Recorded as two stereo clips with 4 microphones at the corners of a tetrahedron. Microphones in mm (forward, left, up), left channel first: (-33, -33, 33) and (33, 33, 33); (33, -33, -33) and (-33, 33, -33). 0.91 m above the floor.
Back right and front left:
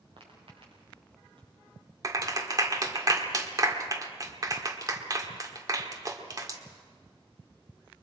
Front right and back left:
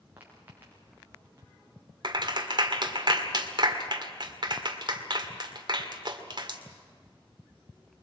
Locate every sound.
0.2 s footsteps: 65° left, 7 m; by 1.5 s 70° left, 8 m
2.0 s a clap: 95° left, 1.8 m